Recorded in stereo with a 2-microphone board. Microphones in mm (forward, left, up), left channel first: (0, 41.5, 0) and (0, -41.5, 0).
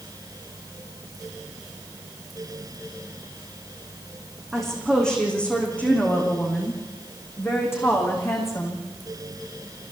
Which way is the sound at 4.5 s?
5° left (ahead or behind).